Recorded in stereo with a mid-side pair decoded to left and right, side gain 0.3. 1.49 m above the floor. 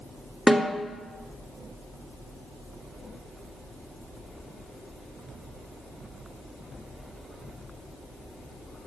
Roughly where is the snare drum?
Ahead.